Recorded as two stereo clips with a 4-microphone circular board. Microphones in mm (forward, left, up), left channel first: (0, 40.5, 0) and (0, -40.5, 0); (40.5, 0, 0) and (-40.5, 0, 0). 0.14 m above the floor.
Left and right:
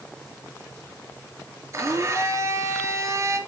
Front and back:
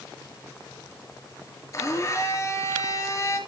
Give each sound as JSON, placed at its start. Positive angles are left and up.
{"t": 1.7, "sound": "a blender", "azimuth_deg": -45, "distance_m": 3.0}